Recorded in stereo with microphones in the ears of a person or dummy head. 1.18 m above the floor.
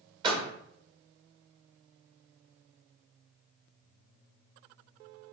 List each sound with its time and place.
0.2 s a door slam: 30° right (ahead or behind), 1.6 m